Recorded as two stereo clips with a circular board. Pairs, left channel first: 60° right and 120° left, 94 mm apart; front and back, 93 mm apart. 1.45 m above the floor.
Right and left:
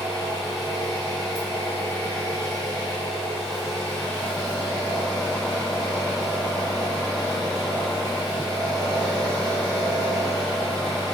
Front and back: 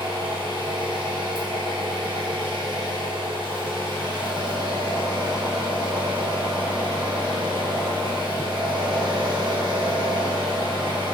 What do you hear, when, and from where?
0.0 s an engine running: 145° right, 0.9 m